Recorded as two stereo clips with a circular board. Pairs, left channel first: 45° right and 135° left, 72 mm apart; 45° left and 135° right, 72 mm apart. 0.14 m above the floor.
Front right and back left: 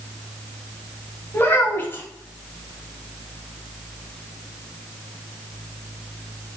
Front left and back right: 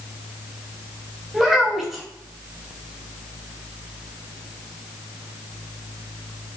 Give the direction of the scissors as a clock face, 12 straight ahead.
No scissors in this recording.